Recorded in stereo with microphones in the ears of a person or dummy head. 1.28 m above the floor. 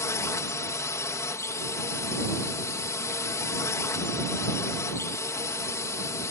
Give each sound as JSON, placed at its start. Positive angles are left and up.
{"t": 0.0, "sound": "a drone", "side_deg": 10}